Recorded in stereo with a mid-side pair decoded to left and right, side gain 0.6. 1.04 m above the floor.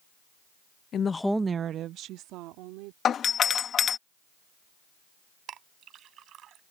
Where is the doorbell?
45° left.